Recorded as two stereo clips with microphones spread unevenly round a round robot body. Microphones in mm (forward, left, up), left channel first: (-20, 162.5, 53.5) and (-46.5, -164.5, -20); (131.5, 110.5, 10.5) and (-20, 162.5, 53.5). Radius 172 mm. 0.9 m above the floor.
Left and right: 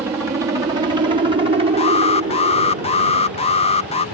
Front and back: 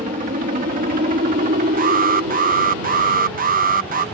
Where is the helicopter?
160° right; by 4.2 s 150° right.